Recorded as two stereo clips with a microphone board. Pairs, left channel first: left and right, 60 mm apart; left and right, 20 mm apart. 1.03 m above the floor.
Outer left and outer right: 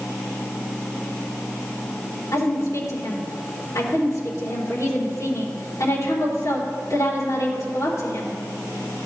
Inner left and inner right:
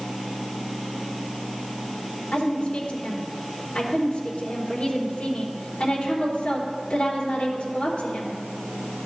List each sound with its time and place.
2.3 s a woman speaking: 75° left (ahead or behind), 3.5 m